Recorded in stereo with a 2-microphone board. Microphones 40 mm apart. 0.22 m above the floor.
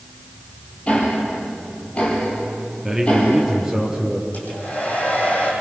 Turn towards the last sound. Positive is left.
turn(degrees=45)  # may be behind; listen again after turning